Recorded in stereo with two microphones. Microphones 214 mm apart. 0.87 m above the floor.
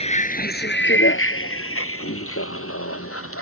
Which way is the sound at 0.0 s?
30° left (ahead or behind).